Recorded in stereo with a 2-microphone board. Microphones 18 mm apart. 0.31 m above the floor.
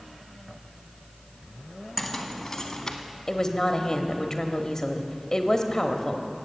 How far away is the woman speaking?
About 1.1 m.